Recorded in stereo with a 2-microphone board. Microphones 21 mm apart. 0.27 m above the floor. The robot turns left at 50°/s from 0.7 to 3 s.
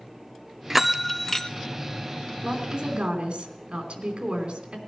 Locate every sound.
0.7 s a bell: 160° right, 0.5 m; by 1.5 s 160° left, 0.5 m
2.4 s a woman speaking: 30° right (ahead or behind), 3 m; by 4.8 s 50° right (ahead or behind), 3 m